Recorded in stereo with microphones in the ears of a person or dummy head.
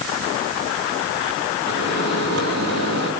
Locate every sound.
1.7 s a microwave: 90° right, 7.5 m